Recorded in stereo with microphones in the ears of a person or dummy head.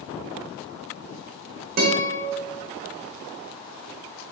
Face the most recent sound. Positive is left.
turn(degrees=-45)  # may be behind; listen again after turning